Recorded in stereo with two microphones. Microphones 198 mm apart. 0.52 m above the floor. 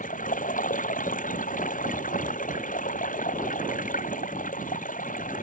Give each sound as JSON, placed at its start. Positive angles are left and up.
{"t": 0.0, "sound": "running water", "side_deg": 40}